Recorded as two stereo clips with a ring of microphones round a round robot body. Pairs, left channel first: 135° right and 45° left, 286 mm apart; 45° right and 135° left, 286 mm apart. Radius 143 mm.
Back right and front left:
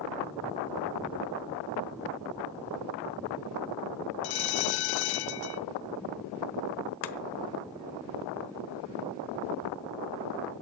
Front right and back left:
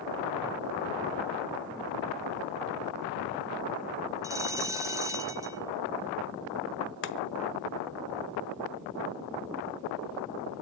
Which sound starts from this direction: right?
Chopping, at 7.0 s.